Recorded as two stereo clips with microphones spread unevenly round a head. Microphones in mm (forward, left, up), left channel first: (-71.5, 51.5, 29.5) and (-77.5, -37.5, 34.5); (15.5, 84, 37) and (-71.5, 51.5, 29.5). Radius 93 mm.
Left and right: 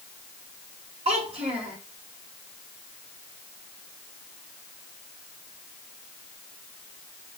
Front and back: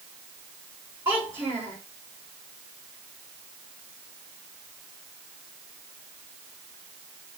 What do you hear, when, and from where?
1.1 s a child speaking: 85° right, 4 m